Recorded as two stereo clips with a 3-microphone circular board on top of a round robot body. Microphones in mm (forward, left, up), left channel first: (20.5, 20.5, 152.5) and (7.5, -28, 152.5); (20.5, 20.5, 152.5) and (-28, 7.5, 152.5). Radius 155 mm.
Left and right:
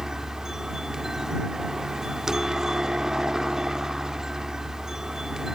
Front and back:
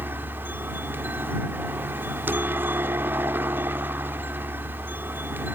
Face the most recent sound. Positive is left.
turn(degrees=180)